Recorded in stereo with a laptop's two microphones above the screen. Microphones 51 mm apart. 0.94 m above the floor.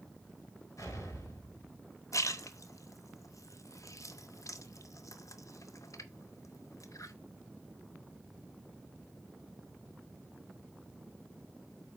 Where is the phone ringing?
No phone ringing in this recording.